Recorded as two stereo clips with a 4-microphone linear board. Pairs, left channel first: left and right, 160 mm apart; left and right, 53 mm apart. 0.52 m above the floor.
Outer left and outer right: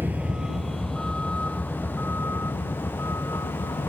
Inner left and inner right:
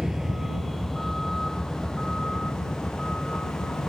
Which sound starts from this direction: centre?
A vehicle, at 0.0 s.